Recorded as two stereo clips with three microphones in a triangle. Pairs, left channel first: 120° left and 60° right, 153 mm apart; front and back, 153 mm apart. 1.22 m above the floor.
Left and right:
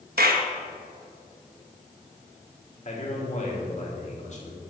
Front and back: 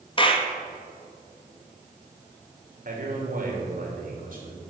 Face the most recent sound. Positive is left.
turn(degrees=160)